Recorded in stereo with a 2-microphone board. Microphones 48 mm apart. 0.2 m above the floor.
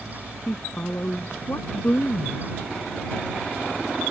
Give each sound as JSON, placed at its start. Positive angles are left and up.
{"t": 0.5, "sound": "a woman speaking", "side_deg": 35}